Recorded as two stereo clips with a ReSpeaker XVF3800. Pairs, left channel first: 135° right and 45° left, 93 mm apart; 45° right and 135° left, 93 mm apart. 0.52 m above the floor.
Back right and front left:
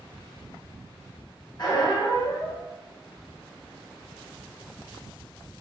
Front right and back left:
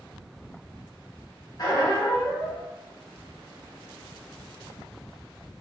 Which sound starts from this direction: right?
A squeak, at 1.6 s.